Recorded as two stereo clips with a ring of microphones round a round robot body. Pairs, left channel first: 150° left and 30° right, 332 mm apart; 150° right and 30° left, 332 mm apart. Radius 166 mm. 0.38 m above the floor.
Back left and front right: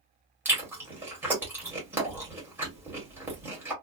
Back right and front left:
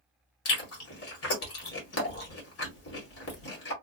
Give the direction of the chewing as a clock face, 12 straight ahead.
4 o'clock.